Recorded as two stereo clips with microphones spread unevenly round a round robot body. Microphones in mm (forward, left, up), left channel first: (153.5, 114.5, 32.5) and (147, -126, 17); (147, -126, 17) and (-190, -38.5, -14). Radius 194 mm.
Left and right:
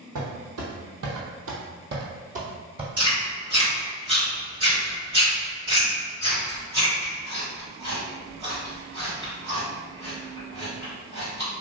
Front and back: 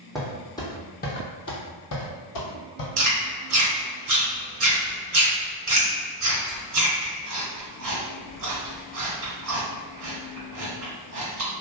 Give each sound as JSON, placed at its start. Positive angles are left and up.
{"t": 0.1, "sound": "footsteps", "azimuth_deg": -105, "distance_m": 1.2}
{"t": 3.0, "sound": "chewing", "azimuth_deg": -170, "distance_m": 1.6}